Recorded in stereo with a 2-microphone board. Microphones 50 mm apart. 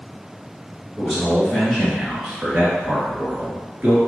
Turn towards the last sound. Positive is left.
turn(degrees=-35)  # may be behind; listen again after turning